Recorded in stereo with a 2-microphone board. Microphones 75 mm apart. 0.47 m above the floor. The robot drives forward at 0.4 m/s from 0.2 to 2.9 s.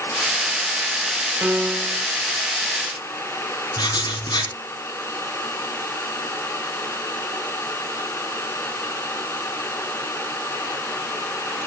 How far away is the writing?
About 4 m.